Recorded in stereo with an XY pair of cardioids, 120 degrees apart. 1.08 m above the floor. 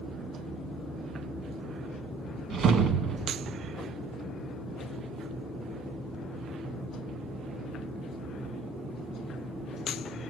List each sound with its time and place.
2.5 s a whoosh: 60° right, 1.2 m